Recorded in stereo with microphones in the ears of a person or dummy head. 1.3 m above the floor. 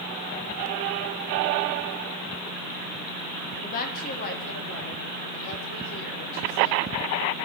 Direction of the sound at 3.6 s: 45° left (ahead or behind).